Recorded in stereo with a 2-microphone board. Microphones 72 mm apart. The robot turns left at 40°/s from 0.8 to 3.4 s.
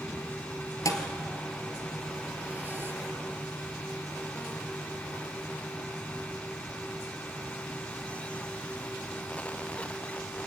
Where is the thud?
50° left (ahead or behind), 1.7 m; by 2.9 s 35° right (ahead or behind), 1.7 m.